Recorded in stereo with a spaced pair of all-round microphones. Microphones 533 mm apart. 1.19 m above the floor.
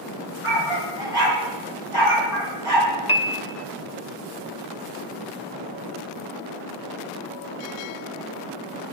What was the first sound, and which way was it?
A dog barking, 65° left (ahead or behind).